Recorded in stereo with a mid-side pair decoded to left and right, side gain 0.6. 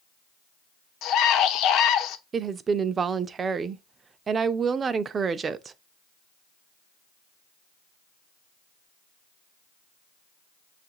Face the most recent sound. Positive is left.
turn(degrees=-35)